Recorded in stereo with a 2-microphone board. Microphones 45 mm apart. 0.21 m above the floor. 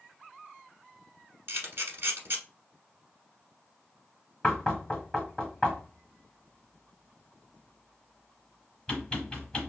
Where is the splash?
I don't hear a splash.